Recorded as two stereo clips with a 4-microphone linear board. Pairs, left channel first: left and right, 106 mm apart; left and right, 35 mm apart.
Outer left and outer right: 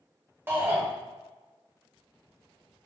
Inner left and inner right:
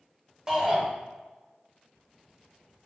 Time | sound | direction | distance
0.5 | a shout | 20° right (ahead or behind) | 0.9 m